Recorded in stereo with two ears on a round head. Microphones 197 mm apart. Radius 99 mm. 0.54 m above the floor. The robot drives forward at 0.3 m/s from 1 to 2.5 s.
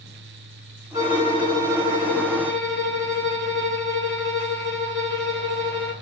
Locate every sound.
0.9 s a violin: 40° right (ahead or behind), 2 m; by 5.9 s 50° right (ahead or behind), 1.9 m